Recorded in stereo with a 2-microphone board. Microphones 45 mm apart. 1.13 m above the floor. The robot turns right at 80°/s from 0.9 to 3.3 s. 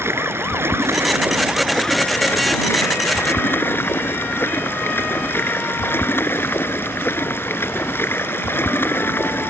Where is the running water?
70° right; by 9.5 s 125° left.